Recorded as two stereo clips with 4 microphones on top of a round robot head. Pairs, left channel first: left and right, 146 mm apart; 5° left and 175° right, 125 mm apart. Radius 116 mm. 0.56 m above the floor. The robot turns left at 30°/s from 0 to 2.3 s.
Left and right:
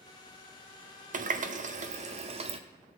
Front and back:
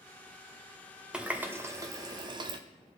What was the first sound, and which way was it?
A running tap, 95° right.